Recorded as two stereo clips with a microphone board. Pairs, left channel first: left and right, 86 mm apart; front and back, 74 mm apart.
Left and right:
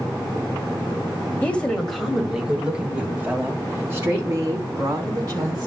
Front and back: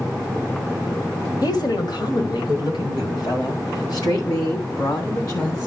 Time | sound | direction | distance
1.4 | a woman speaking | 20° left | 1.7 m